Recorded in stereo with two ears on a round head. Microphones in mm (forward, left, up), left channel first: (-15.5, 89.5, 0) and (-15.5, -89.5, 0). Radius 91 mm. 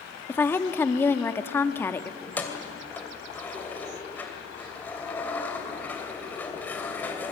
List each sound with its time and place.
0.3 s a woman speaking: 10° left (ahead or behind), 1.3 m
2.2 s keys jangling: 10° left (ahead or behind), 2.5 m